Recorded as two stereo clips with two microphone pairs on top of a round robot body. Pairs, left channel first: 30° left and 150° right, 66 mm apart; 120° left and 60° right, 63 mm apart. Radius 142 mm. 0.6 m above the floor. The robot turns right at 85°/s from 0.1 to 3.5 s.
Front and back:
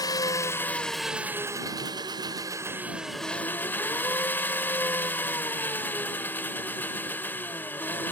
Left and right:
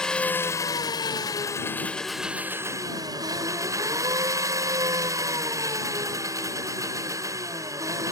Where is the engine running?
40° left; by 8.1 s 30° right.